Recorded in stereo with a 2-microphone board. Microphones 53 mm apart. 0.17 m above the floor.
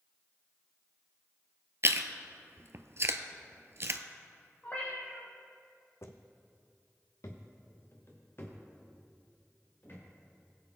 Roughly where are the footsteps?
Left.